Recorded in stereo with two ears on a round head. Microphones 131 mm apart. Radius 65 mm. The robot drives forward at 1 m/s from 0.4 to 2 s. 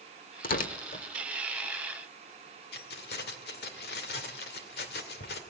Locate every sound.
0.4 s tearing paper: 65° left (ahead or behind), 1.2 m; by 1.1 s 50° left (ahead or behind), 1.5 m
2.7 s keys jangling: 75° left (ahead or behind), 2 m